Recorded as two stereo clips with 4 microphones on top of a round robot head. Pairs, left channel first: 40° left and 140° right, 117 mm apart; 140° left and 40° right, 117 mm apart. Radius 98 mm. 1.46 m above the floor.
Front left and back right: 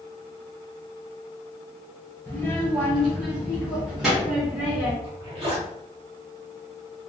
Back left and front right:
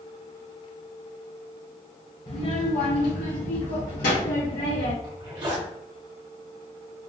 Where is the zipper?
95° right, 1.0 m.